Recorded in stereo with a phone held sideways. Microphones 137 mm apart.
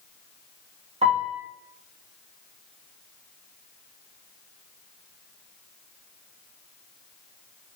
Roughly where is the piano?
Right.